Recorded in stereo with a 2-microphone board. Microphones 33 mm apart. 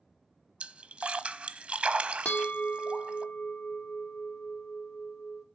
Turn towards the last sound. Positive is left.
turn(degrees=70)  # may be behind; listen again after turning